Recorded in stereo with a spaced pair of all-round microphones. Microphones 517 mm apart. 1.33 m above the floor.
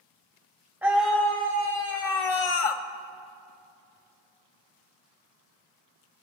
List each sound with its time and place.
0.8 s a scream: 5° right (ahead or behind), 1.3 m; by 2.8 s 85° left, 0.8 m